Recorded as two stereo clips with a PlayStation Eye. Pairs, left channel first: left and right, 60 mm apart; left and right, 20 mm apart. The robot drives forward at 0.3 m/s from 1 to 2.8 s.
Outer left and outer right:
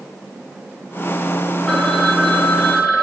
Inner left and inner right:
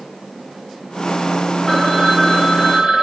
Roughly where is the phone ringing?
Centre.